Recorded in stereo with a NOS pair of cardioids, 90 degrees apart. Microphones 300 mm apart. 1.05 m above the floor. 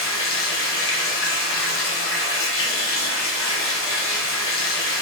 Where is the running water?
45° left, 1.0 m.